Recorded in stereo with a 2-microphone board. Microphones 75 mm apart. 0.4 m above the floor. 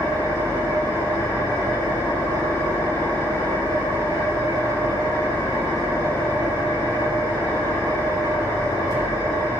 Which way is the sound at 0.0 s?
80° left.